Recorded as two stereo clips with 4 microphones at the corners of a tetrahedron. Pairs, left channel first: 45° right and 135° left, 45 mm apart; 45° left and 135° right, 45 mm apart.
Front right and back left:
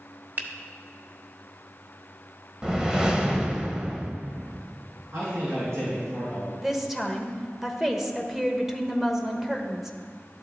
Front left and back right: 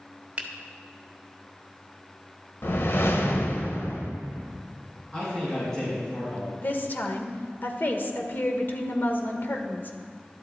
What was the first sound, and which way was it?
A finger snap, 170° left.